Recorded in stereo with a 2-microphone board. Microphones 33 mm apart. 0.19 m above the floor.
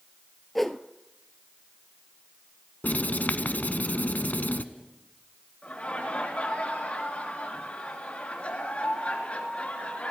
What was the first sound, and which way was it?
A whoosh, 10° left (ahead or behind).